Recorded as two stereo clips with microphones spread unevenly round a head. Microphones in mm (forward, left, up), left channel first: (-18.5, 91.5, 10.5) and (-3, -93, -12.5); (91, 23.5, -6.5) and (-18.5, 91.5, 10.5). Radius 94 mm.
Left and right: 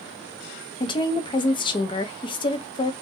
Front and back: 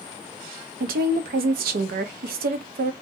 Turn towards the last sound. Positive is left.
turn(degrees=160)